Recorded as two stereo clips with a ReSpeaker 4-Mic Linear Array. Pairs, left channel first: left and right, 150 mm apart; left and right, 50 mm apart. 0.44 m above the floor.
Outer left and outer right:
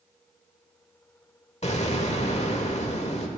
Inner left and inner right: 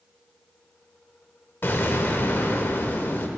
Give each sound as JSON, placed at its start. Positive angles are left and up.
{"t": 1.6, "sound": "an explosion", "side_deg": 45, "distance_m": 1.1}